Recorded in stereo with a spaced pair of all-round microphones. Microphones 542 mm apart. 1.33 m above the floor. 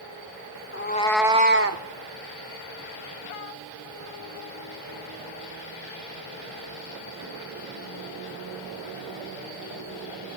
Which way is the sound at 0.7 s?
25° left (ahead or behind).